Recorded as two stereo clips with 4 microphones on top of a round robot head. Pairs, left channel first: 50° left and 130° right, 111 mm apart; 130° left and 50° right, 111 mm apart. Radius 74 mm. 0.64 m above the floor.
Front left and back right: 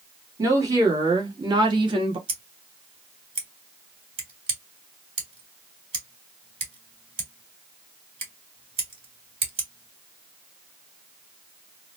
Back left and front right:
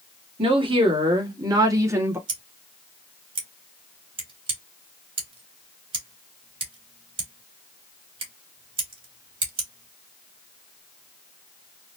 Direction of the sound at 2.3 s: 90° right.